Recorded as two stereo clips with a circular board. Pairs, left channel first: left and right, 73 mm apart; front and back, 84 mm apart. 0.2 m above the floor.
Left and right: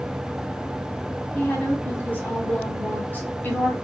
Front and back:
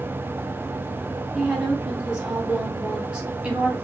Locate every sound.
1.4 s a woman speaking: 115° left, 1.4 m